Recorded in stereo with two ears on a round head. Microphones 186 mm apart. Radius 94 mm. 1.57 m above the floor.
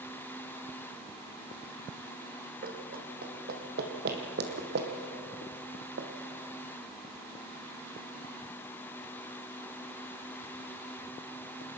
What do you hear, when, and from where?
2.6 s running footsteps: 45° right (ahead or behind), 3.5 m; by 6.1 s 55° right (ahead or behind), 2.5 m